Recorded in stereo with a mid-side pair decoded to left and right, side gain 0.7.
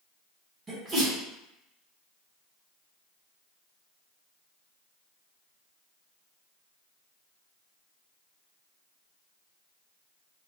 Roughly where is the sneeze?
Ahead right.